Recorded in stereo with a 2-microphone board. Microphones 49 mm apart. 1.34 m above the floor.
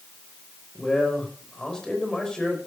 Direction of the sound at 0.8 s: 15° left (ahead or behind).